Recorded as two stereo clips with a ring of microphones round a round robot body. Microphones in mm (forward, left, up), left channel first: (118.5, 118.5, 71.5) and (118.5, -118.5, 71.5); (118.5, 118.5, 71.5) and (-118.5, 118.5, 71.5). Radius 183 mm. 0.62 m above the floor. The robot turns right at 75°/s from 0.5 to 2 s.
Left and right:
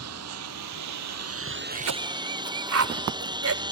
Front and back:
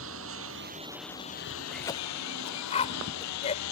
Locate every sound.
0.0 s a lawn mower: 130° right; by 3.7 s 15° right
1.7 s a cough: 90° right; by 3.6 s 70° right